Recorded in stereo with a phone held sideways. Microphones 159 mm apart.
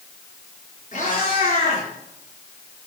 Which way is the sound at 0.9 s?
50° left (ahead or behind).